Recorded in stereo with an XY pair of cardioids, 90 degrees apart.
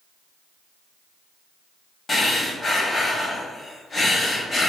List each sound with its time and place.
2.1 s breathing: 35° left, 1.1 m